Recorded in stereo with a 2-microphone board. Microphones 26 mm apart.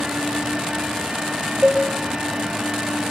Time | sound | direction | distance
1.6 | a cowbell | 25° right (ahead or behind) | 9 m